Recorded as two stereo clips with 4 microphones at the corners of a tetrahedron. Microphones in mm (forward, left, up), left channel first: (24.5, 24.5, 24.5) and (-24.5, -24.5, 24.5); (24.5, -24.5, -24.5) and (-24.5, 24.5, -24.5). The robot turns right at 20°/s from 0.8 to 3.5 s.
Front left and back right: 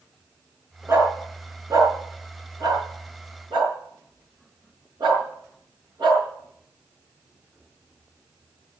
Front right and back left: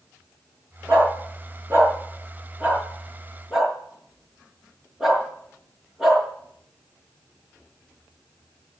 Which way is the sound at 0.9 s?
170° left.